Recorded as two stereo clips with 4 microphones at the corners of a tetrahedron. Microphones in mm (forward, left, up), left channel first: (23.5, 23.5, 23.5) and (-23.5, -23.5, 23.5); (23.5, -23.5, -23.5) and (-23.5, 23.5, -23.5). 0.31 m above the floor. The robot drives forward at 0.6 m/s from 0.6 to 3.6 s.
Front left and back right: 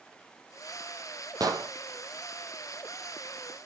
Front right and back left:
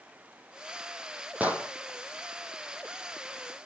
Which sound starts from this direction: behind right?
An explosion, at 1.4 s.